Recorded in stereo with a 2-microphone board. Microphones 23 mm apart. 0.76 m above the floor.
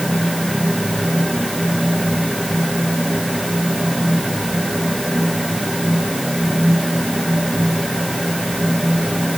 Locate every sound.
Only background noise.